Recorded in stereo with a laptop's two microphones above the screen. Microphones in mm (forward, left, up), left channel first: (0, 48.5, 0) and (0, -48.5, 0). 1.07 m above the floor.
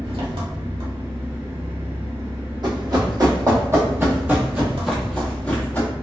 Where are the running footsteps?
50° right (ahead or behind), 1.6 m; by 5.9 s 20° left (ahead or behind), 1.3 m.